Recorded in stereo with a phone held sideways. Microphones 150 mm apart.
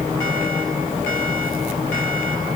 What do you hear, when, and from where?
Only background noise.